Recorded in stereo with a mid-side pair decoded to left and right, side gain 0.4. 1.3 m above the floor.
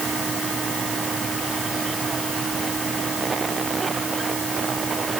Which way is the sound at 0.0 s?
45° right.